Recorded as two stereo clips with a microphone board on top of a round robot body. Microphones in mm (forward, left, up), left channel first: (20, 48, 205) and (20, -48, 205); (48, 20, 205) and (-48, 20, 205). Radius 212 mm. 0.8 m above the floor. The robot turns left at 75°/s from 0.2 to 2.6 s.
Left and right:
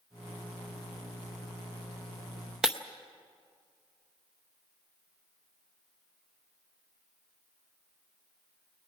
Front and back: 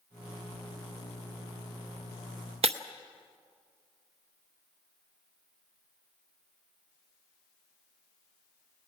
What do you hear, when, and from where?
2.6 s breaking glass: 175° right, 0.7 m